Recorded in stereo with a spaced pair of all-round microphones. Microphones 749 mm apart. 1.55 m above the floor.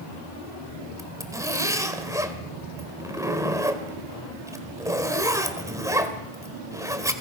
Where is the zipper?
5° right (ahead or behind), 2.0 m.